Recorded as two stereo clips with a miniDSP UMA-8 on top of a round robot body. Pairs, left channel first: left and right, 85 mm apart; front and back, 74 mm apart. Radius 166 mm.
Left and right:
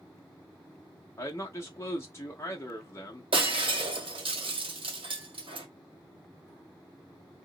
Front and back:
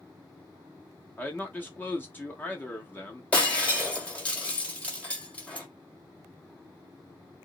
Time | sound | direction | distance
1.2 | a man speaking | 50° left | 1.1 m
3.3 | breaking glass | 75° right | 1.7 m